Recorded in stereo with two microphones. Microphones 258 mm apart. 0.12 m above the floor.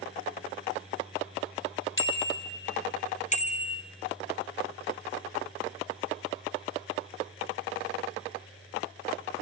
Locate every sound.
2.0 s a bicycle bell: 50° left (ahead or behind), 2.5 m; by 3.8 s 20° left (ahead or behind), 2 m